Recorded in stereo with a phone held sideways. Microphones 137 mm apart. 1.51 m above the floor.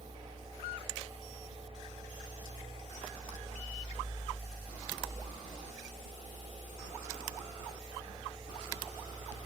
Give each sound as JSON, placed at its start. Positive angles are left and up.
{"t": 0.0, "sound": "a fan", "side_deg": -45, "distance_m": 1.9}